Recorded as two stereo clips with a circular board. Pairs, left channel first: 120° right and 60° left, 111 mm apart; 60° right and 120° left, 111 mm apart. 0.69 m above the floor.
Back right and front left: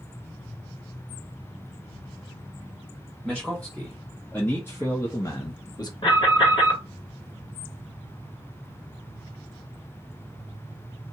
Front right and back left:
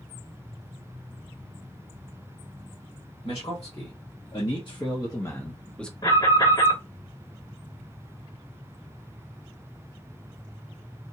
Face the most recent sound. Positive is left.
turn(degrees=-100)